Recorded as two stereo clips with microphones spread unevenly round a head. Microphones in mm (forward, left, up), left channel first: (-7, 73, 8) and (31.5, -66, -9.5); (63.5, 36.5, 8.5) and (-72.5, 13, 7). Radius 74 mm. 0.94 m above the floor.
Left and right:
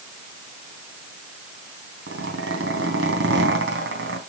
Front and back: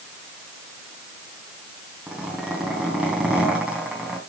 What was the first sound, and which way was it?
A zipper, 85° right.